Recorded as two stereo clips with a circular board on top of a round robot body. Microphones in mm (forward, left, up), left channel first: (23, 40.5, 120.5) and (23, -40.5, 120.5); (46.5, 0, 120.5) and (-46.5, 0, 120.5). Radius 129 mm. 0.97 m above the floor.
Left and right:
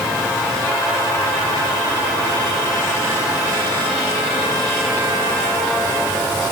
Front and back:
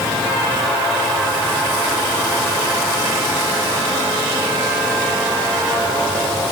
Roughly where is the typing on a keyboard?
No typing on a keyboard in this recording.